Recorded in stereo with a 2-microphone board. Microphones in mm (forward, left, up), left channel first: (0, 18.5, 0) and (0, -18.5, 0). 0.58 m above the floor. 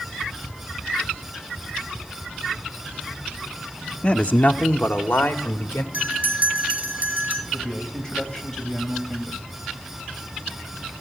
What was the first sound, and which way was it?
A man speaking, 25° left (ahead or behind).